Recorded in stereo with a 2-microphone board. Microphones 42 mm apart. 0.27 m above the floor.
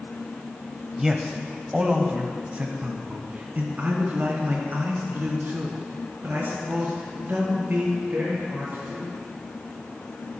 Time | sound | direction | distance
1.0 | a man speaking | 10° right (ahead or behind) | 1.1 m